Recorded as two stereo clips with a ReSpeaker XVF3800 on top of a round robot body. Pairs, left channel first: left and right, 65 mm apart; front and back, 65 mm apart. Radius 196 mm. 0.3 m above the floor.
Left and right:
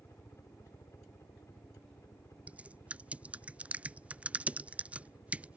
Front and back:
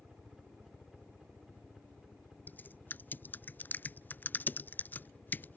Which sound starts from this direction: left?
A helicopter, at 0.0 s.